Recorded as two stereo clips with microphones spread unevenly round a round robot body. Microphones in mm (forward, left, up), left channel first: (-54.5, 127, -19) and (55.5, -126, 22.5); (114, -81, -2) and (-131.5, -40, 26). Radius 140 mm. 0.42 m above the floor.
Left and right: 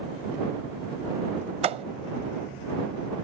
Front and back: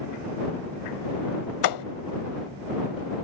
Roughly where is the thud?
Ahead.